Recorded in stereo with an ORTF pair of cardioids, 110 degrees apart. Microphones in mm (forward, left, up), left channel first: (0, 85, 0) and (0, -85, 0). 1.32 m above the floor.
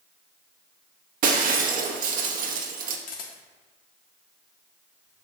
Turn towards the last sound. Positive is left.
turn(degrees=55)